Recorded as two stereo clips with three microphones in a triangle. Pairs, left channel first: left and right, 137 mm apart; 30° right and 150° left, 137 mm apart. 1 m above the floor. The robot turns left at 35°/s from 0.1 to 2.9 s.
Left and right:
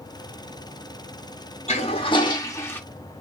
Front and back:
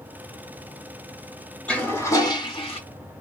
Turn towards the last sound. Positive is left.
turn(degrees=10)